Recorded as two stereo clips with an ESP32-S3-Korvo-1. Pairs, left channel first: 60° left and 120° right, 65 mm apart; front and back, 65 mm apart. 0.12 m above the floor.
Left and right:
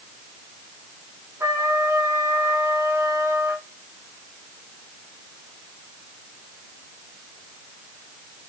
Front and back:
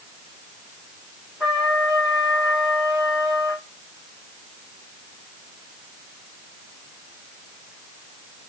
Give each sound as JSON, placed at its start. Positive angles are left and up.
{"t": 1.4, "sound": "a trumpet", "azimuth_deg": -90, "distance_m": 3.5}